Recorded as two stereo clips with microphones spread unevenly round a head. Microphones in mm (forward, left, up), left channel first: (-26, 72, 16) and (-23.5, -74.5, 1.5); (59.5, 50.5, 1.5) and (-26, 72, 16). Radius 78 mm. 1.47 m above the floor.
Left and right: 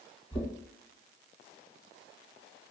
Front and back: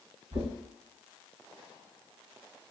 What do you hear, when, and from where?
0.3 s knocking: 145° left, 1.9 m